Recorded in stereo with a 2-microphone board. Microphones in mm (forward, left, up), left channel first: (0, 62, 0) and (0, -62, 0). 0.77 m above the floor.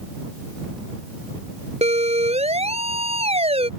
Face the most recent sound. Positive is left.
turn(degrees=-55)  # may be behind; listen again after turning